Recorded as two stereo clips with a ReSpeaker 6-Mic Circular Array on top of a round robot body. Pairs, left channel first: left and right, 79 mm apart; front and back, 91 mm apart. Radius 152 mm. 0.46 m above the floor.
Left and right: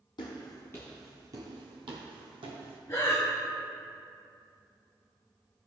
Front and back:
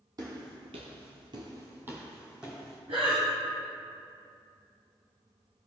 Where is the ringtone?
I don't hear a ringtone.